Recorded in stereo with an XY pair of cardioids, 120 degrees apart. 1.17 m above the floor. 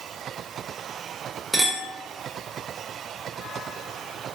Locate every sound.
1.5 s a clink: 10° right, 0.8 m